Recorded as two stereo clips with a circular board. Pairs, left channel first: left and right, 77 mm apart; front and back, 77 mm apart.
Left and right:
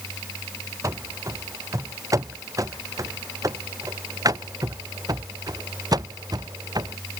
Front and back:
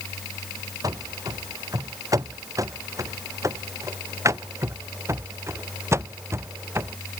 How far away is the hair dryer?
I don't hear a hair dryer.